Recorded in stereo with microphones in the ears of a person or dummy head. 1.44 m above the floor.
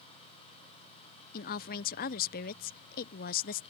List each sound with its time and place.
1.3 s a woman speaking: 50° left (ahead or behind)